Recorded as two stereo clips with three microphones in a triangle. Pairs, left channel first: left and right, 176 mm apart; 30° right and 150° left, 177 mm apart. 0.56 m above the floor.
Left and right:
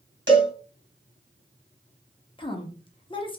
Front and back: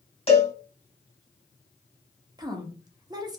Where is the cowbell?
90° right, 1.7 m.